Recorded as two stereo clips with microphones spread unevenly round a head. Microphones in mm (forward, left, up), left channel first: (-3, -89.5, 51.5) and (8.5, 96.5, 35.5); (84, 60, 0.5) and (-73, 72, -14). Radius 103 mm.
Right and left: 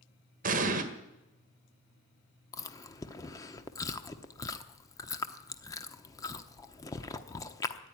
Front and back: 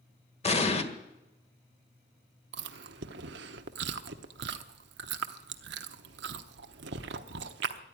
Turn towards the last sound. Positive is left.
turn(degrees=-165)